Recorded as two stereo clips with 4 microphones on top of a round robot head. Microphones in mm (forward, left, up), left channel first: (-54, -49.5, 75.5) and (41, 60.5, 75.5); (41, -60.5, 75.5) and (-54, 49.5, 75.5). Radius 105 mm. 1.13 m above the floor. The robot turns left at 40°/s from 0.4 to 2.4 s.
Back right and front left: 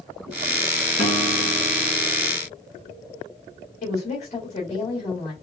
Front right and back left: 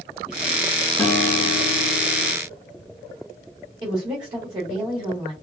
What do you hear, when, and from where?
1.0 s a guitar: 125° right, 3 m; by 2.3 s 175° right, 3 m
3.8 s a woman speaking: 170° right, 1.6 m